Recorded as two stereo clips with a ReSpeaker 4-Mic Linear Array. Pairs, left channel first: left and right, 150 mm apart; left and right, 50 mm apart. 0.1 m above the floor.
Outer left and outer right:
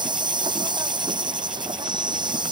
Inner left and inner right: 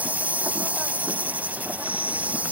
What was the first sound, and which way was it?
An insect, 30° right (ahead or behind).